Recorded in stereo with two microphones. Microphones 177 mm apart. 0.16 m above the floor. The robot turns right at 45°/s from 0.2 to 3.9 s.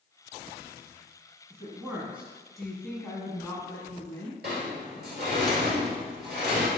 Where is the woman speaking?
15° right (ahead or behind), 1.1 m; by 4.4 s 20° left (ahead or behind), 1.1 m.